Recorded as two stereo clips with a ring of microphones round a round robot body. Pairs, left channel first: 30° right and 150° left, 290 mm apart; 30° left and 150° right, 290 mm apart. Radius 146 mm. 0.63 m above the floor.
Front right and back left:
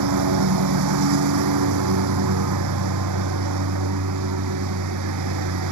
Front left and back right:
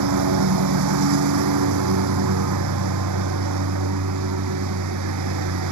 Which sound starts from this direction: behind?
A lawn mower, at 0.0 s.